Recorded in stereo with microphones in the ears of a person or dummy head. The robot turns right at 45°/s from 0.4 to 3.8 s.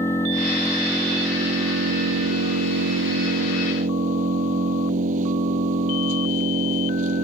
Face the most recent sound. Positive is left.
turn(degrees=-45)